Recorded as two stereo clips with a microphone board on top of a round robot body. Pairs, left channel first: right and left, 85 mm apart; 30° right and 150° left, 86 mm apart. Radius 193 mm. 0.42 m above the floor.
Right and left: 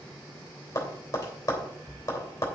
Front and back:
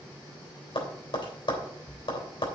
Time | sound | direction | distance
0.8 | tapping | 40° right | 3 m